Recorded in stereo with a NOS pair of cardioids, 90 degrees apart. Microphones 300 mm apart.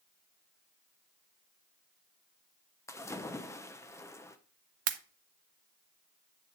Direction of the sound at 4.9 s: 55° right.